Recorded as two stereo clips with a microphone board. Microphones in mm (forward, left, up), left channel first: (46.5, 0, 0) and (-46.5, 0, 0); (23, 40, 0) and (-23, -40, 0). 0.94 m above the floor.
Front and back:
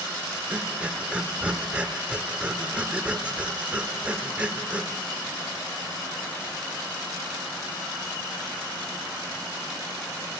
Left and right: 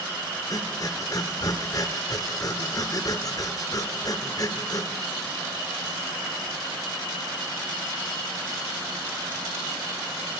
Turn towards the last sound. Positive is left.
turn(degrees=105)